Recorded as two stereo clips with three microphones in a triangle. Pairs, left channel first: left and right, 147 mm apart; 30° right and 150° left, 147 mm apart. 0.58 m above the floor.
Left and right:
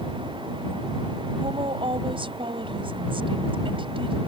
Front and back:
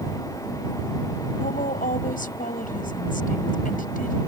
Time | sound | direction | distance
1.4 | a woman speaking | 40° right | ?